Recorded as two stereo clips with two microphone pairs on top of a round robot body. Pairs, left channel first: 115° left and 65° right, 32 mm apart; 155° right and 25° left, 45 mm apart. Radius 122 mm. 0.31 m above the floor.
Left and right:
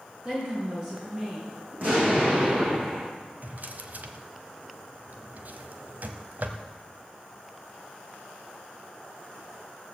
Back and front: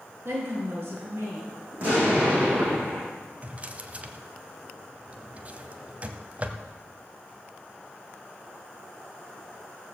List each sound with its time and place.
0.2 s a woman speaking: 15° right, 4.5 m
1.7 s an explosion: 30° right, 7.5 m
3.4 s a drawer: 30° right, 1.1 m